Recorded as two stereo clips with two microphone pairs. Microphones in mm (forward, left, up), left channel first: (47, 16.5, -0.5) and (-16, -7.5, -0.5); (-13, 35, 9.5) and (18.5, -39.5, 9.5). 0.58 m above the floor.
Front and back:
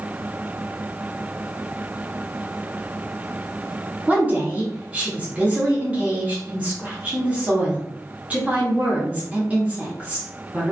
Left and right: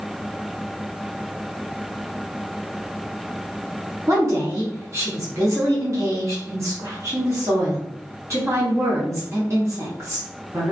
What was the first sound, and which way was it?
A woman speaking, 100° right.